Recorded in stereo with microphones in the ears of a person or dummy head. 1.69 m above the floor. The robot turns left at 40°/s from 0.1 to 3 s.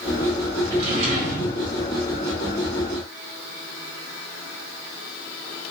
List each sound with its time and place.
0.7 s a drawer: 35° right, 1.2 m; by 1.6 s 70° right, 1.2 m